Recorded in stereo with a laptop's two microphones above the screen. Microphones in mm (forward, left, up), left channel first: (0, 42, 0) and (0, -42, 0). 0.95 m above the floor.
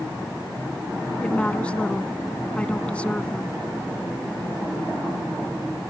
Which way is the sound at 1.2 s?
15° left (ahead or behind).